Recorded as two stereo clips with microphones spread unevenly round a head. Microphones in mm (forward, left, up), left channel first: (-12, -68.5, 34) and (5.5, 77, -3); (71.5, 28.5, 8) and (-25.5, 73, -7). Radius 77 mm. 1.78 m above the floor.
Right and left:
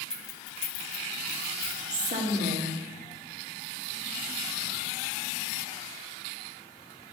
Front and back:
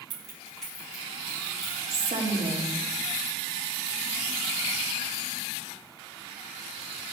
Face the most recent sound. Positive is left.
turn(degrees=125)